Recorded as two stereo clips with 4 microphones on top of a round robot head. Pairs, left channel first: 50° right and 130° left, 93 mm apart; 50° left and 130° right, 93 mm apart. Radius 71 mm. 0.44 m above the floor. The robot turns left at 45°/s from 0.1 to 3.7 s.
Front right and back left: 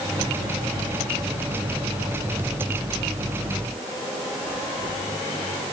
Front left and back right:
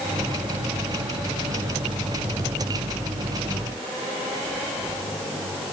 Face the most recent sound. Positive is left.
No sound to turn to.